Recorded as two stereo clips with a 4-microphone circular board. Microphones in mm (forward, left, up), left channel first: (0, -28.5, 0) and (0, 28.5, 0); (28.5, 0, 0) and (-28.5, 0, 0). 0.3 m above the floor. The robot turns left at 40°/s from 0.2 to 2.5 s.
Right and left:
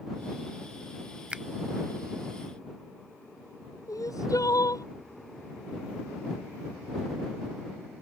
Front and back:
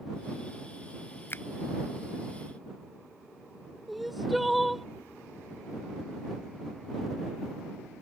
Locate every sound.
1.3 s a finger snap: 25° left; by 1.4 s 20° left
3.9 s crying: 90° right